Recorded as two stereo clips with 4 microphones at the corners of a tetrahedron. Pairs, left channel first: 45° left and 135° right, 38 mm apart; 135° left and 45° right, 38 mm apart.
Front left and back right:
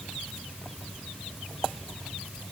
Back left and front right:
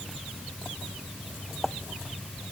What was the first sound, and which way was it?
Only background noise.